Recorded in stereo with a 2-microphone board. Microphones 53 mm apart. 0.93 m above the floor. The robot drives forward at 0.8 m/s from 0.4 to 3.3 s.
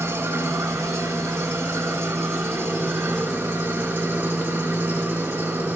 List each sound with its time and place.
0.0 s an engine running: 75° right (ahead or behind), 1.9 m; by 5.8 s 45° right (ahead or behind), 2.5 m